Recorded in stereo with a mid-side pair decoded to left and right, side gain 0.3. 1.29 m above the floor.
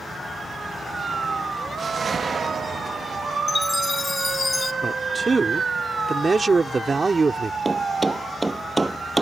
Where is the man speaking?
40° right.